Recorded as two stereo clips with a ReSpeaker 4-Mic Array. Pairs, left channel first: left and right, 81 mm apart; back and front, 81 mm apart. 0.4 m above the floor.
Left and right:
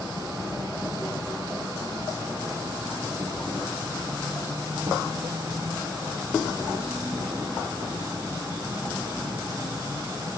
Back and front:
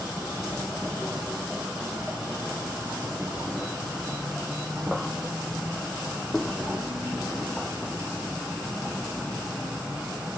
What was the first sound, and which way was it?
An insect, 85° right.